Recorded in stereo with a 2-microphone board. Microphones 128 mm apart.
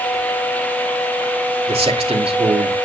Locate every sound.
1.7 s a man speaking: 50° right (ahead or behind), 2.5 m